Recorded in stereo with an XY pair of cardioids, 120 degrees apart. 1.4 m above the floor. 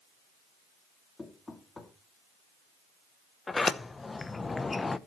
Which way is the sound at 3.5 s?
20° left.